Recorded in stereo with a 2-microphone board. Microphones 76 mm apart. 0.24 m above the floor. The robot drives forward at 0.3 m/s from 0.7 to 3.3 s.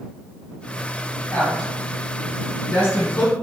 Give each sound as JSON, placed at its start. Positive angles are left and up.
{"t": 1.3, "sound": "a woman speaking", "side_deg": 25, "distance_m": 1.8}